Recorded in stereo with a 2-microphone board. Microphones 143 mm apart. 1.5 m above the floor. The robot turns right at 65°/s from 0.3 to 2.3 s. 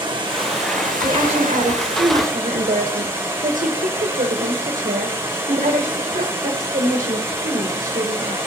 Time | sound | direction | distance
0.0 | running water | 145° right | 1.6 m
1.0 | a woman speaking | 150° right | 1.1 m